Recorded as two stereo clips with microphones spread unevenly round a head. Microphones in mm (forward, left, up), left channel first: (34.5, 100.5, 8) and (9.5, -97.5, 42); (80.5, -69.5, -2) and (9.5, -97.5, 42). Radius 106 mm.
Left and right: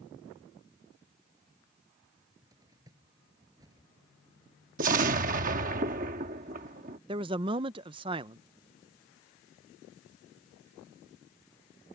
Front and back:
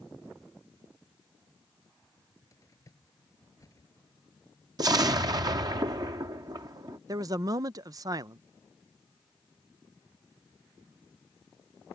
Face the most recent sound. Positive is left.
turn(degrees=-160)